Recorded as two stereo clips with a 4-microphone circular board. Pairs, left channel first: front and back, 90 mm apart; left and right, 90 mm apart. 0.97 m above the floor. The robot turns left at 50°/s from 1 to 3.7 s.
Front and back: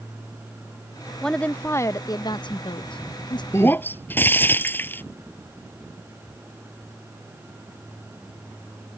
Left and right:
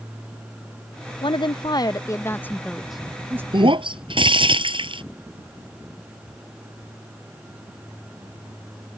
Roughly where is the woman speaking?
Left.